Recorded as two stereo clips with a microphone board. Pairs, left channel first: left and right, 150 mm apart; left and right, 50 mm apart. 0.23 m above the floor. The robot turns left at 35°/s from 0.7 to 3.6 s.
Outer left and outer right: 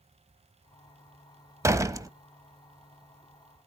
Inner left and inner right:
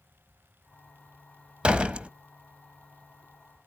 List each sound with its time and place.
1.6 s a door slam: 20° right (ahead or behind), 0.6 m; by 2.1 s 25° right (ahead or behind), 0.6 m